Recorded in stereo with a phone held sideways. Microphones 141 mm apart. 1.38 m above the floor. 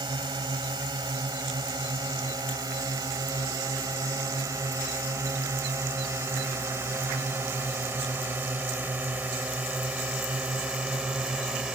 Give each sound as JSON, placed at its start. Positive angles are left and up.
{"t": 0.0, "sound": "a drone", "side_deg": -30}